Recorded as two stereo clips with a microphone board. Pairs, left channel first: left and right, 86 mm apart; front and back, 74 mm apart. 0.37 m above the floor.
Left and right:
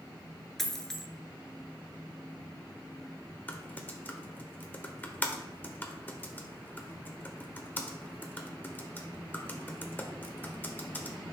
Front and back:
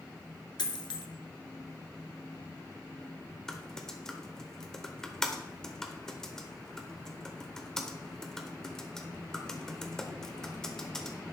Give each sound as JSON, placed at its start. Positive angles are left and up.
{"t": 0.6, "sound": "a dropped coin", "azimuth_deg": 5, "distance_m": 1.1}
{"t": 3.5, "sound": "typing on a keyboard", "azimuth_deg": 70, "distance_m": 1.0}